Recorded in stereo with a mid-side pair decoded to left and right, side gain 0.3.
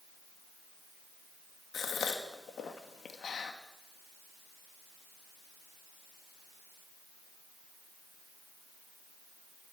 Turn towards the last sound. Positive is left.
turn(degrees=70)